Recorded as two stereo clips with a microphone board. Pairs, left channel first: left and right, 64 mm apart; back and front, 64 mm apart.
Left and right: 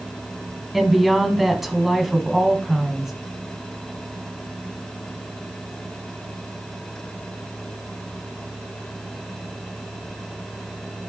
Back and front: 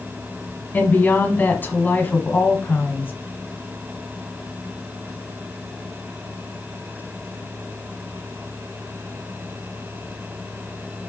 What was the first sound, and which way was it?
A woman speaking, 175° right.